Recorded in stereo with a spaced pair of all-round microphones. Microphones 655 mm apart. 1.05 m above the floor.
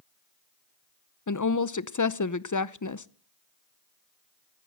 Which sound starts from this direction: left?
A woman speaking, at 1.3 s.